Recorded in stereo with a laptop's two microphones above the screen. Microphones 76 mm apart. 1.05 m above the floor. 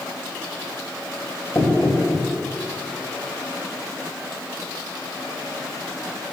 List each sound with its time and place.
1.6 s knocking: 45° left (ahead or behind), 5 m